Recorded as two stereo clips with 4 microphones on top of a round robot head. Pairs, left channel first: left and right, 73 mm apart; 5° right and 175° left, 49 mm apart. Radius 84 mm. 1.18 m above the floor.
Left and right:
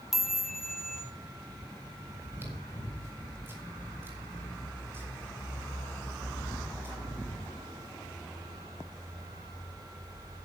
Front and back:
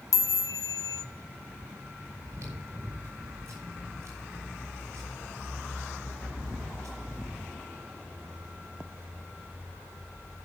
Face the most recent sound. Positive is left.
turn(degrees=-150)